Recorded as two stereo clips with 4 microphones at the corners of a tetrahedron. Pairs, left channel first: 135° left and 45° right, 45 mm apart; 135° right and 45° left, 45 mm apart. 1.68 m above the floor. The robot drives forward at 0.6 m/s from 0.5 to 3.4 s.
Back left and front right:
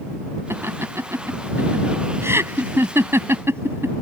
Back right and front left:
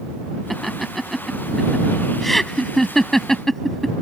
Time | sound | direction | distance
0.5 | laughter | 45° right | ?